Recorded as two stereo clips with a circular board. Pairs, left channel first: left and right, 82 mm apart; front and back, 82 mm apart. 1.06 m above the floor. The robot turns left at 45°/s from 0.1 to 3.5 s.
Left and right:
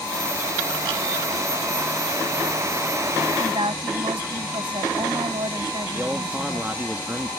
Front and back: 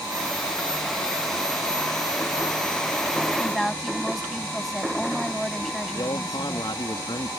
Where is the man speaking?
20° right.